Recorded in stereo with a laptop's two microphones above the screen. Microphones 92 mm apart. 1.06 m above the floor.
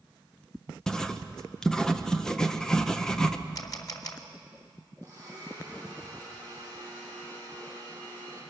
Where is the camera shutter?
40° left (ahead or behind), 2.5 m.